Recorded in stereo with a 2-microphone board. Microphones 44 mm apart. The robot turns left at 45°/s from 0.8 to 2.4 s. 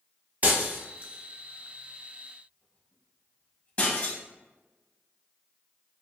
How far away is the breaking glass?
About 1.2 m.